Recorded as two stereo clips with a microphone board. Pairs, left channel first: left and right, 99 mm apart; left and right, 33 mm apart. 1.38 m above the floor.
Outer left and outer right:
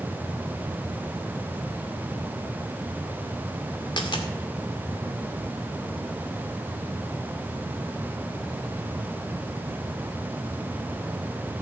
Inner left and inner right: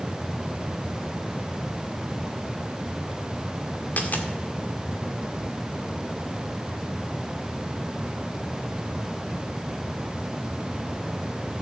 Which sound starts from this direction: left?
A dropped coin, at 4.0 s.